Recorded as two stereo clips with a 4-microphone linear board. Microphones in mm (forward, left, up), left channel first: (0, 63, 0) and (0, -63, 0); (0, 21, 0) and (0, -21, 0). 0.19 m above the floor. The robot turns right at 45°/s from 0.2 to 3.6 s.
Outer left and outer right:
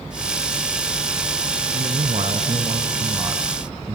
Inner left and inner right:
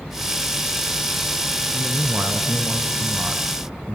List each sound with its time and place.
1.7 s a man speaking: 110° right, 2 m; by 4.0 s 25° right, 2 m